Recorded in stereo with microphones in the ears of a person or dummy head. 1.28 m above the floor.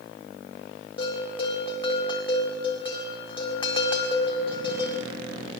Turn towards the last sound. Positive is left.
turn(degrees=30)  # may be behind; listen again after turning